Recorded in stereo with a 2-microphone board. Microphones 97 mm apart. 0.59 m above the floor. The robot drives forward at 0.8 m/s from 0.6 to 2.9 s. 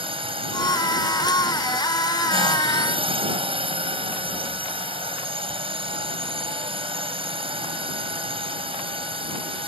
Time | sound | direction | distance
0.0 | a drone | 70° right (ahead or behind) | ?